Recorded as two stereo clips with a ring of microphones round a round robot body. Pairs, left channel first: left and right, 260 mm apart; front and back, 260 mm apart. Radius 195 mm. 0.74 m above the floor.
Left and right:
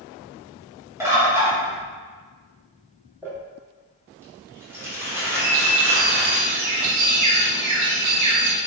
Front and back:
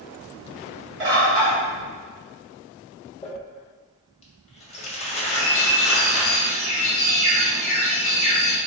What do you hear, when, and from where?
1.0 s a bird: 170° right, 1.4 m
3.2 s crumpling: 20° right, 0.7 m
5.4 s a bird: 95° right, 0.7 m